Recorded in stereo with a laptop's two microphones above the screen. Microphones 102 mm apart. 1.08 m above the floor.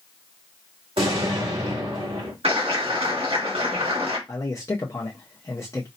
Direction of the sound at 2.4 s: 75° right (ahead or behind).